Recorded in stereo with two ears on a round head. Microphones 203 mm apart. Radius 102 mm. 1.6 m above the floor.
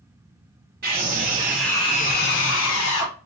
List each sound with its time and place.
0.8 s a scream: 45° right (ahead or behind), 0.8 m; by 3.1 s 70° left (ahead or behind), 1.2 m